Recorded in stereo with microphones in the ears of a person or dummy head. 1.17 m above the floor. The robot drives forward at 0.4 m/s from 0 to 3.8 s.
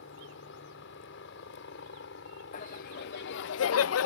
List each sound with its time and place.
0.0 s a helicopter: 65° left (ahead or behind)
2.5 s laughter: 45° left (ahead or behind); by 4.1 s 85° left